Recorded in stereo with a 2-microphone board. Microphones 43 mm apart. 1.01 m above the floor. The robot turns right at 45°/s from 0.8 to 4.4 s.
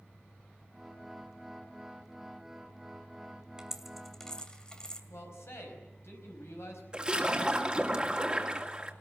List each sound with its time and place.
3.6 s a dropped coin: 15° right (ahead or behind), 2 m; by 5.0 s 20° left (ahead or behind), 2 m
5.1 s a man speaking: 90° left, 5 m
6.9 s a splash: 20° right (ahead or behind), 2 m